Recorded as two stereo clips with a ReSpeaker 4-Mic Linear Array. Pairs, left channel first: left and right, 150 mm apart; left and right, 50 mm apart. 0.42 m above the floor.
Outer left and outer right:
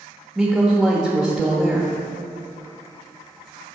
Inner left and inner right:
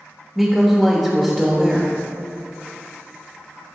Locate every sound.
0.3 s a woman speaking: centre (ahead or behind), 1.1 m